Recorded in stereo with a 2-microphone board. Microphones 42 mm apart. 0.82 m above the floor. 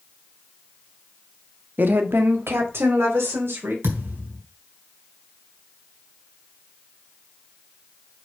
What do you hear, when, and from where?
1.8 s a woman speaking: 50° right (ahead or behind), 1.2 m; by 3.7 s 80° right, 3.5 m
3.8 s a thud: 85° right, 3 m